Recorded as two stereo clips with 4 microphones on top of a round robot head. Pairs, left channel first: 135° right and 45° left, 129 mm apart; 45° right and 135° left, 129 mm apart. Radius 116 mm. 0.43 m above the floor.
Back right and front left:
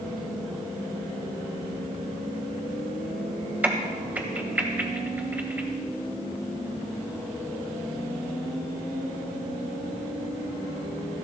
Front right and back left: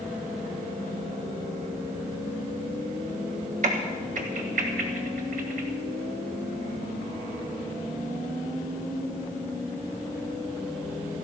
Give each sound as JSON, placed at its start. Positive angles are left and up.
{"t": 3.6, "sound": "a crack", "azimuth_deg": 120, "distance_m": 1.7}